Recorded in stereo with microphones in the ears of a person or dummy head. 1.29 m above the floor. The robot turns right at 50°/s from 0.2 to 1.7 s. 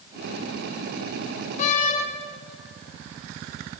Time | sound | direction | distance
1.6 | a door slam | 45° left (ahead or behind) | 4 m